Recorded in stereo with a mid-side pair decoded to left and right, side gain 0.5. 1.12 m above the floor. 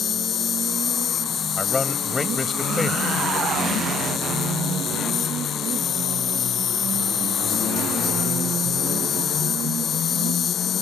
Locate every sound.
0.0 s an insect: 50° left
1.6 s a man speaking: 20° left